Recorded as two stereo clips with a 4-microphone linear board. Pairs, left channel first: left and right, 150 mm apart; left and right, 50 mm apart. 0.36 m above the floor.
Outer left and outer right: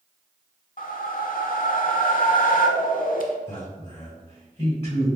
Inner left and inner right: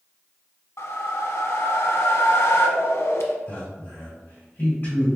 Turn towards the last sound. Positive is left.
turn(degrees=45)  # may be behind; listen again after turning